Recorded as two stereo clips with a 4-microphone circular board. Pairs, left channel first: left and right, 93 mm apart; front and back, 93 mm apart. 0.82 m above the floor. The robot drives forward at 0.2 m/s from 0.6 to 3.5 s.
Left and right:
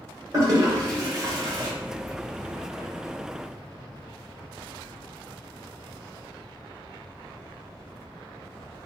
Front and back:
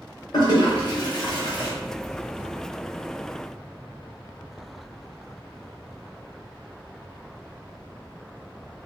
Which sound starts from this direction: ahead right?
A toilet flushing, at 0.3 s.